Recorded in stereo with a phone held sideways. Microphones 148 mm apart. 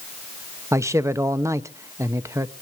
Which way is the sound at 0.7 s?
20° right (ahead or behind).